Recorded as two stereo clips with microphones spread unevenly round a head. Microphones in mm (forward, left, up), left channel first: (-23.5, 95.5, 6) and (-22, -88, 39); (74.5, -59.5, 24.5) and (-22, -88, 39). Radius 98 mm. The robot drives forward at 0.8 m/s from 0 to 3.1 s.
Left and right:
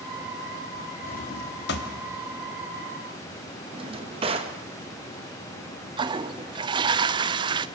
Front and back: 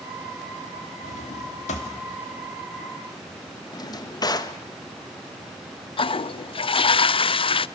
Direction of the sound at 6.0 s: 20° right.